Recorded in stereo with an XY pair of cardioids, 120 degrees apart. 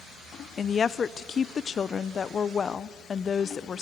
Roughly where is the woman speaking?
Ahead left.